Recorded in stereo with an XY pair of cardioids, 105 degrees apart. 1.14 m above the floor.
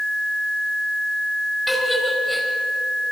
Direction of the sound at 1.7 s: 5° right.